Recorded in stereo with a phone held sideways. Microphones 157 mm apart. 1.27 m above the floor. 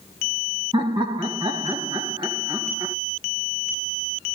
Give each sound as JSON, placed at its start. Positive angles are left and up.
{"t": 0.7, "sound": "laughter", "side_deg": -30, "distance_m": 1.6}